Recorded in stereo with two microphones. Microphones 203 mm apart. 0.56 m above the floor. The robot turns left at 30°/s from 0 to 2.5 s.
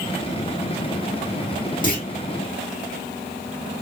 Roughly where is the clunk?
Left.